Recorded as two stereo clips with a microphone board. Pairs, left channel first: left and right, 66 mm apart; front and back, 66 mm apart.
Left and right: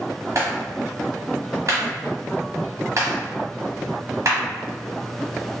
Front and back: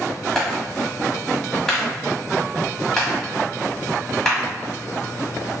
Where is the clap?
80° right, 1.3 m.